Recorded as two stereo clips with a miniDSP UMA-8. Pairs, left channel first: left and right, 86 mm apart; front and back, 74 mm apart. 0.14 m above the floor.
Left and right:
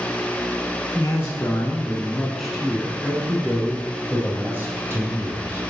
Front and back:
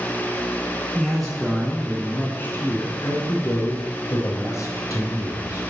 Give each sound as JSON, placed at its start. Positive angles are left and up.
{"t": 0.9, "sound": "a man speaking", "azimuth_deg": 95, "distance_m": 1.2}